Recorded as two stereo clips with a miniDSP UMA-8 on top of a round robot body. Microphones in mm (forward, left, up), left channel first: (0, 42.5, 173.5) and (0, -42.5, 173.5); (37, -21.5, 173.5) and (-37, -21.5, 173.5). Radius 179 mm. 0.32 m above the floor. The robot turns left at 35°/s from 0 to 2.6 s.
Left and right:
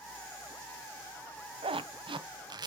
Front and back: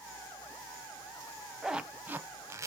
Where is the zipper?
95° right, 0.9 m; by 2.7 s 130° right, 0.9 m.